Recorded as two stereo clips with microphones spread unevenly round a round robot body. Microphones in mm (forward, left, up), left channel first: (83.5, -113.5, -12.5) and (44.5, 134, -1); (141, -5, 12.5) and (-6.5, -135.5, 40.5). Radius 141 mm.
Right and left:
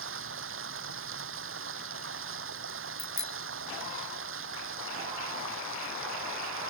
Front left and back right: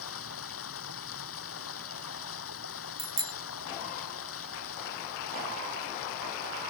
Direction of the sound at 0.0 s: 60° left.